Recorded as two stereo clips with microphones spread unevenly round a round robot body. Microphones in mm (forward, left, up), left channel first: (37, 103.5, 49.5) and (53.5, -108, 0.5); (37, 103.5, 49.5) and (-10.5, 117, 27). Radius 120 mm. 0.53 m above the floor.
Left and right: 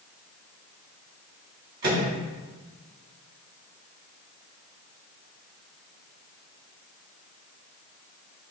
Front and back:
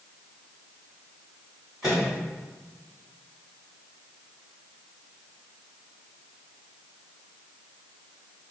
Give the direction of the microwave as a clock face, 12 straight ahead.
4 o'clock.